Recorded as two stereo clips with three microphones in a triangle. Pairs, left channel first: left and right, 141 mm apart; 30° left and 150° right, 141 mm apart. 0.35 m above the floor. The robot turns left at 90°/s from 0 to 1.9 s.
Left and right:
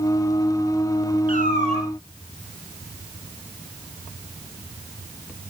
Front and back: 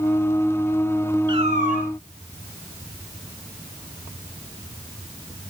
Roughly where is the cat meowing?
Right.